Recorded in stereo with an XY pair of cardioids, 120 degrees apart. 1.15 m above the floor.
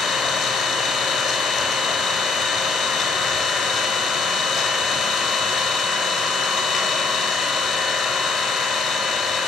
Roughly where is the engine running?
Ahead left.